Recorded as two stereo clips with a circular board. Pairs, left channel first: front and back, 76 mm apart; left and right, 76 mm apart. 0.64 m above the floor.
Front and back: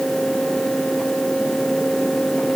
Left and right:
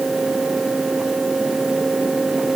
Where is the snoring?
I don't hear snoring.